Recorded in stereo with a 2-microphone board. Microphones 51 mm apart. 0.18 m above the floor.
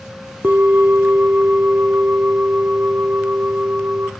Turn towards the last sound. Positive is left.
turn(degrees=-35)  # may be behind; listen again after turning